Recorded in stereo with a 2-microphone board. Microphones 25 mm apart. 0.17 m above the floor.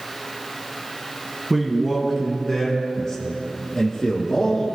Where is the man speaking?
5° right (ahead or behind), 1.6 m; by 4.7 s 35° left (ahead or behind), 3 m.